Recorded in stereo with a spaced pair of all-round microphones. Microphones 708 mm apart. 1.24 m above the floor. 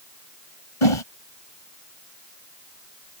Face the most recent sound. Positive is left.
turn(degrees=45)  # may be behind; listen again after turning